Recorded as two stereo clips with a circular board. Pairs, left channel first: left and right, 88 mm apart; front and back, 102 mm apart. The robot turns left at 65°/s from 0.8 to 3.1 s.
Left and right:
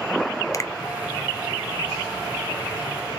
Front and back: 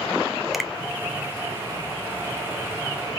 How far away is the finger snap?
About 0.5 m.